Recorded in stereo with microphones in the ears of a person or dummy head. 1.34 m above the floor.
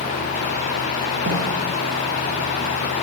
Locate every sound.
1.3 s a snare drum: 35° right (ahead or behind), 0.6 m